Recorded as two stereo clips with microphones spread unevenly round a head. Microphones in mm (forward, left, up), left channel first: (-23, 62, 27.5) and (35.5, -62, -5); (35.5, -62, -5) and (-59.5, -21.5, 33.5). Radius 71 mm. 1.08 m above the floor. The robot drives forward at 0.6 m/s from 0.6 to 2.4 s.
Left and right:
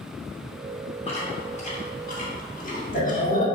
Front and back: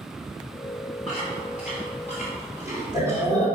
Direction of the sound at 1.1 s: 65° left.